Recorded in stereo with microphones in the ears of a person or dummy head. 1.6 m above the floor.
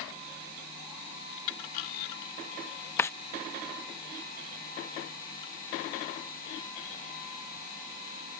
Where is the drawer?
20° left (ahead or behind).